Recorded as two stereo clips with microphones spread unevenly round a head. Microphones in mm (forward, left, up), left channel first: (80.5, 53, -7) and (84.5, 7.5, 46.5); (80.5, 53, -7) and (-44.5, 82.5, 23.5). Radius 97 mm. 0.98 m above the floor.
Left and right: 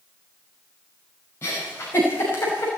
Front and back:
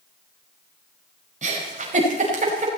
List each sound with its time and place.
1.4 s a giggle: 140° left, 5 m